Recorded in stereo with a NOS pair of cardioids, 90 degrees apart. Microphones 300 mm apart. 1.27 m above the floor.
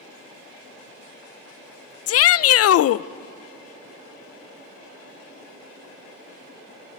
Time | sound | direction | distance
2.1 | a shout | 50° left | 0.6 m